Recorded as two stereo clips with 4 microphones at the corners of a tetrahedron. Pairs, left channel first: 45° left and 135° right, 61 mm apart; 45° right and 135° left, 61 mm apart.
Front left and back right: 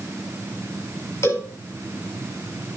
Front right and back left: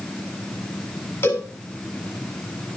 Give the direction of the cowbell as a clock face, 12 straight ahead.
12 o'clock.